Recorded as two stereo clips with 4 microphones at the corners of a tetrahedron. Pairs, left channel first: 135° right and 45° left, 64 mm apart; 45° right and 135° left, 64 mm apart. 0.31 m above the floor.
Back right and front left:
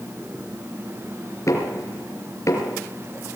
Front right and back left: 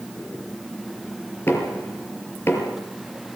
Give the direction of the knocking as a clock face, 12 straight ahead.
3 o'clock.